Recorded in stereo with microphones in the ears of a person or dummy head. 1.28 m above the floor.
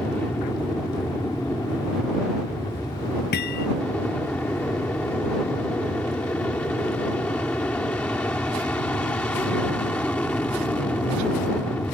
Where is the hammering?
55° left (ahead or behind).